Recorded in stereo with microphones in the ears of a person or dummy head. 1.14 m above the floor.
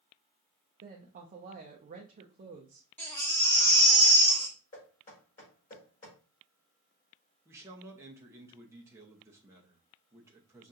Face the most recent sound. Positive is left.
turn(degrees=-10)  # may be behind; listen again after turning